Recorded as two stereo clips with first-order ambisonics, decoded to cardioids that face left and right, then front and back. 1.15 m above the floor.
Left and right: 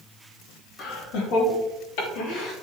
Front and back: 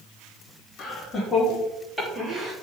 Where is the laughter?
70° left, 3.5 m; by 2.5 s 110° left, 3 m.